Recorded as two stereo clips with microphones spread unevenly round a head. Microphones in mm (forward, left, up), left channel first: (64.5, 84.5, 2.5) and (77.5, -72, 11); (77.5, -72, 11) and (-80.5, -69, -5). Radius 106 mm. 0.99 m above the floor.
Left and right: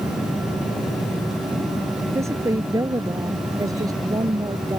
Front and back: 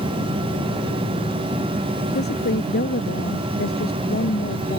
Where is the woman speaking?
15° right; by 4.8 s 20° right.